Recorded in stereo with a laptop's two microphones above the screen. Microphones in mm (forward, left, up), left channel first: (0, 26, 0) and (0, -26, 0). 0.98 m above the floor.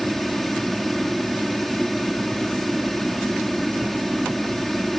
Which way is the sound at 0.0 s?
Centre (ahead or behind).